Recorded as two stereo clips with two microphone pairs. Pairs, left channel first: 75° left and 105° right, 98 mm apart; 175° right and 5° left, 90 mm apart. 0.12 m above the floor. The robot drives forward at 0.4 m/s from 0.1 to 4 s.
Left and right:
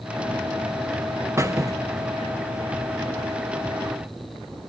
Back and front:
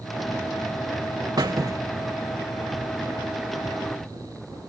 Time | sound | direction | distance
1.4 | a squeak | 40° right | 0.8 m